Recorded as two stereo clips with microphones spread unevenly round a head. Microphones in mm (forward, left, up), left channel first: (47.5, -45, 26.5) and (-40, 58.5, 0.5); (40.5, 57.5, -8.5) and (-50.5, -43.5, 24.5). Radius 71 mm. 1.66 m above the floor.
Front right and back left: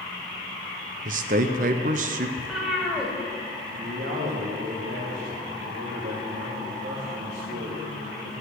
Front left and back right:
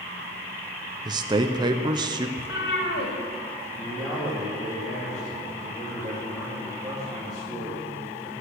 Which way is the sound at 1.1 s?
170° left.